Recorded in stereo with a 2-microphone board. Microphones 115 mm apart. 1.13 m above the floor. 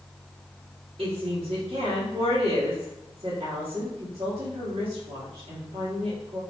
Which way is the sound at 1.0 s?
65° right (ahead or behind).